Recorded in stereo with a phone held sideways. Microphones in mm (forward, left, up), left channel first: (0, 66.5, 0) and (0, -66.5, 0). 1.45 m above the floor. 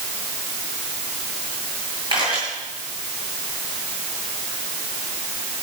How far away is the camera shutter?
About 9.5 m.